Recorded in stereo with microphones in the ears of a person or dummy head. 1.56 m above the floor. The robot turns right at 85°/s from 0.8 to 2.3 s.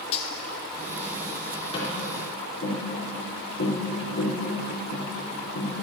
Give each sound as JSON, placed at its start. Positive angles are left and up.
{"t": 0.1, "sound": "cutlery clinking", "side_deg": 35, "distance_m": 0.9}
{"t": 1.7, "sound": "tapping", "side_deg": 30, "distance_m": 4.0}